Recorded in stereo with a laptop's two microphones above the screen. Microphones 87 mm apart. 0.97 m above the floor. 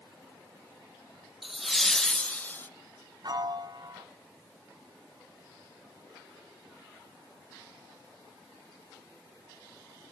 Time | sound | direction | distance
1.4 | laughter | 5° right (ahead or behind) | 1.0 m
3.2 | a piano | 50° right (ahead or behind) | 1.3 m